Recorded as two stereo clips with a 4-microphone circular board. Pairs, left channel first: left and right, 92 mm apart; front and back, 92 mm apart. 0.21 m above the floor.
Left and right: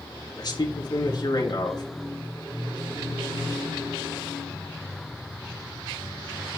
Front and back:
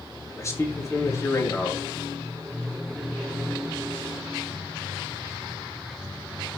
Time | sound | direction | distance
0.4 | a man speaking | 55° left | 3 m